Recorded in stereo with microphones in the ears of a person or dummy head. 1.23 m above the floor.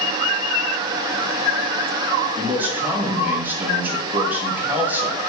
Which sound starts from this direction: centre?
A man speaking, at 2.4 s.